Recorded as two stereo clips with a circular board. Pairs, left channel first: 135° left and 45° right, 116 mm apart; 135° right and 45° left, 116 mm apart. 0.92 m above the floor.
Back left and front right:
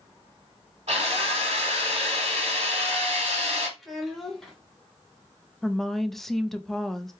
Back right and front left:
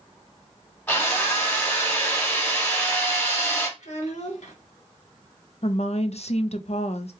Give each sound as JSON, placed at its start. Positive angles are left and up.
{"t": 0.9, "sound": "a drill", "azimuth_deg": -65, "distance_m": 2.5}
{"t": 3.8, "sound": "a child speaking", "azimuth_deg": -135, "distance_m": 1.6}
{"t": 5.6, "sound": "a woman speaking", "azimuth_deg": -140, "distance_m": 0.5}